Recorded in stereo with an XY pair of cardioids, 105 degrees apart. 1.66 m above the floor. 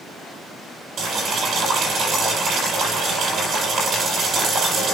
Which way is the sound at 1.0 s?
60° right.